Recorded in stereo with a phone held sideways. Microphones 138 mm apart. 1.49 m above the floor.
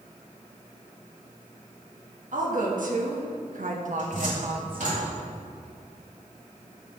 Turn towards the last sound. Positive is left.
turn(degrees=-70)  # may be behind; listen again after turning